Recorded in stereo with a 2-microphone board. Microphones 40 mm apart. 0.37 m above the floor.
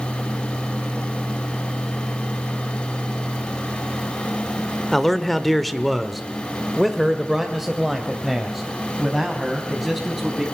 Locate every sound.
4.9 s a man speaking: 5° left (ahead or behind), 1.3 m; by 10.4 s 10° right (ahead or behind), 3.5 m